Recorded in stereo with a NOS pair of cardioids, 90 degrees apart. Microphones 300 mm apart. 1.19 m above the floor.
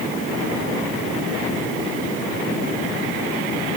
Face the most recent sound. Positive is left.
No sound to turn to.